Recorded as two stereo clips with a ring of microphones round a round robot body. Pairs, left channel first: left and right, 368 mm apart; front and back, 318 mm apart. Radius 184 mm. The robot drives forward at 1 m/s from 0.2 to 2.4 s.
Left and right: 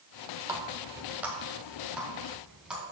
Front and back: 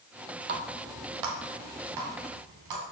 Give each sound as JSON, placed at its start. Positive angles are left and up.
{"t": 0.5, "sound": "a running tap", "azimuth_deg": -165, "distance_m": 0.7}